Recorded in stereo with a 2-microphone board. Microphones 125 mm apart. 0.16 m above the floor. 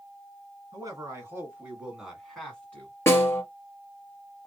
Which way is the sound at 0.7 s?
30° right (ahead or behind).